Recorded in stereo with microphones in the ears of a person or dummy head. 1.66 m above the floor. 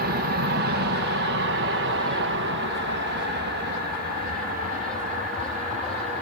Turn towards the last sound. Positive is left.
turn(degrees=-35)  # may be behind; listen again after turning